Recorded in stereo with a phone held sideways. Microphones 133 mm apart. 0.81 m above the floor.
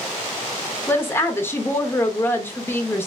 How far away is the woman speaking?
About 0.7 m.